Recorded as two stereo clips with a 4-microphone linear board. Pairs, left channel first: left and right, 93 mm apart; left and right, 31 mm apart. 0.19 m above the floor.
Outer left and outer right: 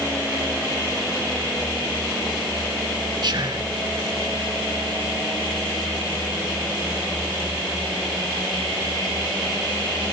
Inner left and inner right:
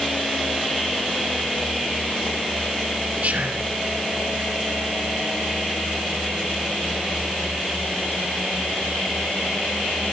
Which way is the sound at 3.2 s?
50° right (ahead or behind).